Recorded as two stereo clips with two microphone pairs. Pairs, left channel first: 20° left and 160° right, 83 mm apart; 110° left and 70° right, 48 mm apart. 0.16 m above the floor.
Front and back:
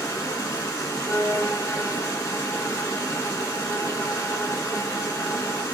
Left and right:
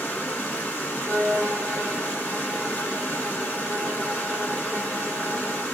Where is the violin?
25° right, 1.2 m.